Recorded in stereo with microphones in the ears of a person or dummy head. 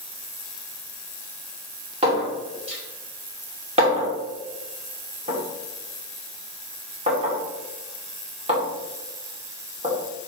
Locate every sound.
2.0 s a clink: 30° right (ahead or behind), 2.5 m